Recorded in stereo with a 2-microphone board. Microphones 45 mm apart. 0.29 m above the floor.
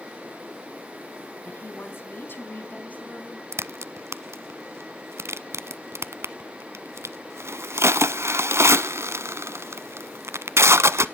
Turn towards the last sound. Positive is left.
turn(degrees=-80)